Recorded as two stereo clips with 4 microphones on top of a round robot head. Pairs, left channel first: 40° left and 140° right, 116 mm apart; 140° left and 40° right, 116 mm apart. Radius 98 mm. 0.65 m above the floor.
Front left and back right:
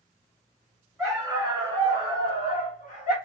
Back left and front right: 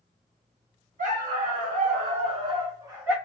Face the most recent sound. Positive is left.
turn(degrees=35)